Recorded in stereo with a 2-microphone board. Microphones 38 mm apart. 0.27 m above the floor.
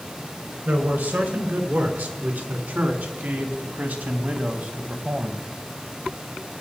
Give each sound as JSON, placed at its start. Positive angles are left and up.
{"t": 0.7, "sound": "a man speaking", "side_deg": -60, "distance_m": 3.5}